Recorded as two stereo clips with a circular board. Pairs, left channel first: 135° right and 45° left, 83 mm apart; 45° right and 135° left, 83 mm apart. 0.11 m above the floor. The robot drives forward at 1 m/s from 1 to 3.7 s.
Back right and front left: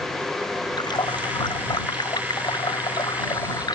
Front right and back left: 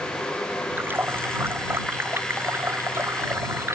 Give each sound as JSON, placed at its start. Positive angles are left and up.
{"t": 0.8, "sound": "a running tap", "azimuth_deg": -160}